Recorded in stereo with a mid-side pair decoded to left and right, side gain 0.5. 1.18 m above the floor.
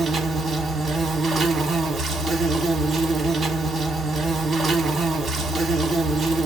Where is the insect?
45° right, 1.2 m.